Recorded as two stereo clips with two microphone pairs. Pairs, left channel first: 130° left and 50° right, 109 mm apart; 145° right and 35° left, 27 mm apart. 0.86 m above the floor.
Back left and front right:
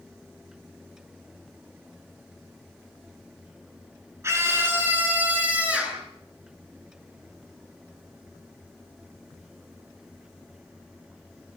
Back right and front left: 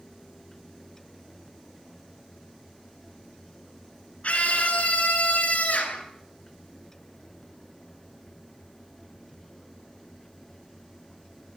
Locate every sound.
4.2 s a scream: 115° right, 8.5 m; by 6.0 s 130° right, 9 m